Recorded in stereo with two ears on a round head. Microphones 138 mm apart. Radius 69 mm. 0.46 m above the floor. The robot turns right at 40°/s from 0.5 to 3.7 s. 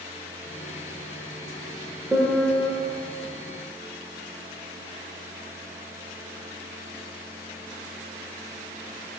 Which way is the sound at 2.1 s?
5° right (ahead or behind).